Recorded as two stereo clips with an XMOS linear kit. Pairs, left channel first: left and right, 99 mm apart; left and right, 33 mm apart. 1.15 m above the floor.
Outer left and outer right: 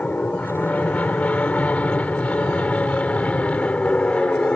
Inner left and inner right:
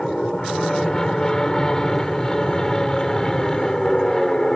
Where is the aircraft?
15° left (ahead or behind); by 4.5 s 10° left (ahead or behind).